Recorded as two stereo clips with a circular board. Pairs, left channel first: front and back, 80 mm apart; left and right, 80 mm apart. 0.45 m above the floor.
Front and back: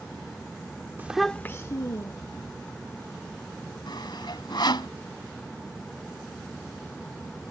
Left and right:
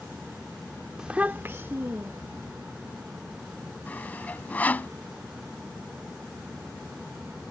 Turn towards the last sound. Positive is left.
turn(degrees=20)